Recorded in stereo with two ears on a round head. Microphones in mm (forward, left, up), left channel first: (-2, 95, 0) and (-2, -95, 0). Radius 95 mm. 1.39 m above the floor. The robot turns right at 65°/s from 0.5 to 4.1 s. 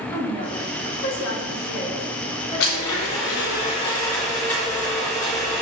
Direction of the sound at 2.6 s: 75° left.